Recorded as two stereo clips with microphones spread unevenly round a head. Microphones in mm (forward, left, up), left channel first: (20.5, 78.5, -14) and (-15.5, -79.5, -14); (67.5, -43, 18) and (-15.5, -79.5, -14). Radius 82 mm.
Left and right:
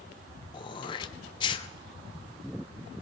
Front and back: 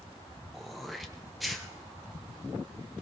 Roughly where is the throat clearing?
Behind left.